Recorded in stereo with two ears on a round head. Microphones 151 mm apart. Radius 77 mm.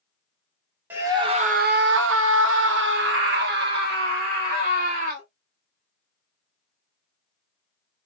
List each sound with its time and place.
0.9 s a scream: 10° right (ahead or behind), 0.7 m; by 5.3 s 60° right (ahead or behind), 2.5 m